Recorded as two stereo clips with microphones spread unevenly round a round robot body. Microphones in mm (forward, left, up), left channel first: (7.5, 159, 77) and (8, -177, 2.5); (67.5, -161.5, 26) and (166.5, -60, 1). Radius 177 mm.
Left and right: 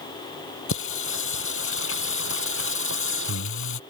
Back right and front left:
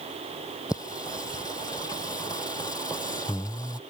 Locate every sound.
0.7 s singing: 145° left